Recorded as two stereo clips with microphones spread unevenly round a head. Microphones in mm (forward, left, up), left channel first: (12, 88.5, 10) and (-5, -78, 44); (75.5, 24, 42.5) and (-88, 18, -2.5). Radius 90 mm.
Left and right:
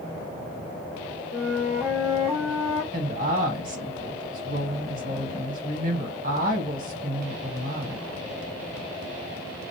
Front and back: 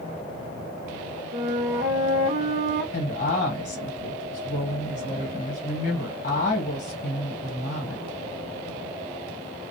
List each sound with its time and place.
1.3 s a flute: 165° right, 0.8 m
2.9 s a woman speaking: 50° right, 1.3 m